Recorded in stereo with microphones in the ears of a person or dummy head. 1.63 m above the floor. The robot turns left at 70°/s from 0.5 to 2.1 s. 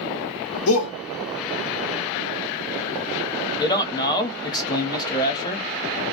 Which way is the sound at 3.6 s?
20° left (ahead or behind).